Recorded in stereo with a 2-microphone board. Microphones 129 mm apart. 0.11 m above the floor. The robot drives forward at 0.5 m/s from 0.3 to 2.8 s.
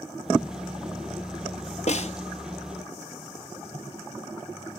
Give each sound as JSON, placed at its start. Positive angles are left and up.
{"t": 1.9, "sound": "a snare drum", "side_deg": 60, "distance_m": 0.7}